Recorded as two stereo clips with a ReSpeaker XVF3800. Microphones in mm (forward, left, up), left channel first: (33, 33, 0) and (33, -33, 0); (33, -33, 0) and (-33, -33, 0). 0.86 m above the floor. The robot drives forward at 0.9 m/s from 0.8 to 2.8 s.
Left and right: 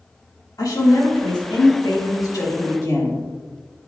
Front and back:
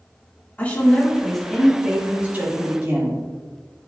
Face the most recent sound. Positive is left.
turn(degrees=130)